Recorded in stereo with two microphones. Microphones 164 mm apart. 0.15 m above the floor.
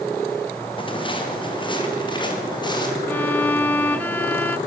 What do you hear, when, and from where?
0.8 s footsteps: 30° left (ahead or behind), 6 m; by 3.0 s 25° left (ahead or behind), 8.5 m
3.1 s a violin: 10° left (ahead or behind), 0.7 m